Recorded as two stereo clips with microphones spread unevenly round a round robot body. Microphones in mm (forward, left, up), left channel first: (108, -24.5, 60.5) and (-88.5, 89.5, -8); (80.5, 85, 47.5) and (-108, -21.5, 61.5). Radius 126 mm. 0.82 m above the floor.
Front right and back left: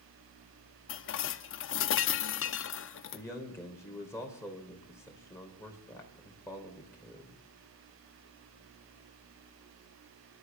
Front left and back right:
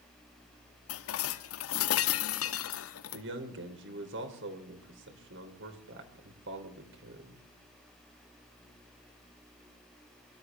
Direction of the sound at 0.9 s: 10° left.